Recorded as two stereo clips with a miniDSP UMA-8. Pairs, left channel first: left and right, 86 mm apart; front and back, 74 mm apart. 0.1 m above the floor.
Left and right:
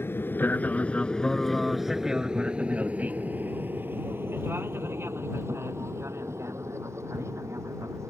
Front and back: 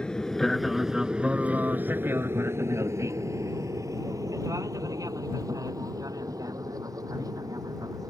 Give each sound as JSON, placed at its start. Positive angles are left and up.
{"t": 0.0, "sound": "an aircraft", "azimuth_deg": 65}